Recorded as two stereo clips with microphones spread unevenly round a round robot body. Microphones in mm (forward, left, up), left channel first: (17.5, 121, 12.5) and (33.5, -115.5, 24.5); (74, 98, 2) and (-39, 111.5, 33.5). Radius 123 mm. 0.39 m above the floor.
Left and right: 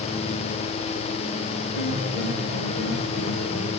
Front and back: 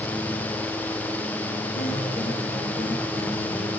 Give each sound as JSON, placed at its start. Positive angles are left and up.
{"t": 1.7, "sound": "a piano", "azimuth_deg": -150, "distance_m": 5.5}